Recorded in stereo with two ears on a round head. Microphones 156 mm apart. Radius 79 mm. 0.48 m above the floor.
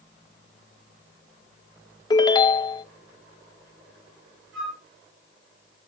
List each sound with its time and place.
2.1 s a ringtone: 25° left (ahead or behind), 0.6 m
4.5 s a flute: 75° right (ahead or behind), 7 m